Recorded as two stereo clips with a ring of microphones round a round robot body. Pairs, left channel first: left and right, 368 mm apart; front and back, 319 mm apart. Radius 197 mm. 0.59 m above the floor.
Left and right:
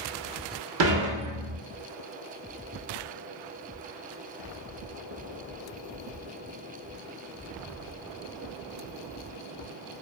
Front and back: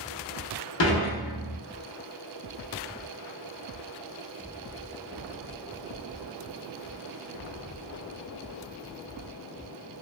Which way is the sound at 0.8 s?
45° right.